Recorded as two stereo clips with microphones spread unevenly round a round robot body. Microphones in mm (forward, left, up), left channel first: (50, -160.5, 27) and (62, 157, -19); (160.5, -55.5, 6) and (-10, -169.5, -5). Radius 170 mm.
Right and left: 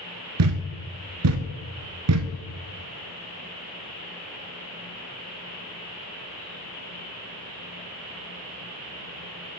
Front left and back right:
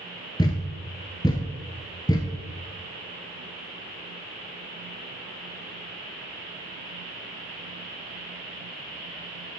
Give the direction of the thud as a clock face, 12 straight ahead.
9 o'clock.